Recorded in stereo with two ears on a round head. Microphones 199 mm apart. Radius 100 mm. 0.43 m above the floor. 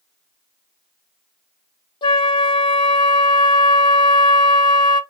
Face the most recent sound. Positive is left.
turn(degrees=20)  # may be behind; listen again after turning